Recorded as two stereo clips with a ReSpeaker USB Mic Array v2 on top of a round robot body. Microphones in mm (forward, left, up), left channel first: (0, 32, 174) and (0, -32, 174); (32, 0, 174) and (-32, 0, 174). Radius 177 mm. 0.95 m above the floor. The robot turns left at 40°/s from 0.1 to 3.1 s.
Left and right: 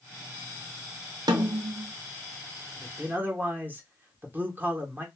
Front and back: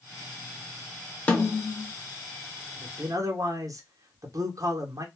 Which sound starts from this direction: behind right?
A man speaking, at 2.8 s.